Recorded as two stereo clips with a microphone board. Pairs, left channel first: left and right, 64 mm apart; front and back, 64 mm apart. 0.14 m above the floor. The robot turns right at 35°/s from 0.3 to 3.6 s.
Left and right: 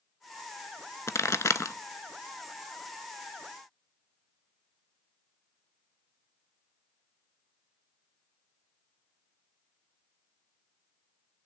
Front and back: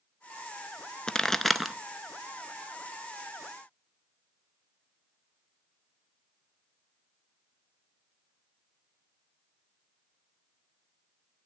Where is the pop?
75° left, 0.5 m; by 1.8 s 95° left, 0.5 m.